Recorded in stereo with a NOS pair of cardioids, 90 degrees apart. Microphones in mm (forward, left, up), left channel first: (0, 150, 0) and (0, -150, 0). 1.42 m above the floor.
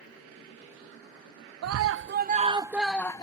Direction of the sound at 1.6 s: 60° right.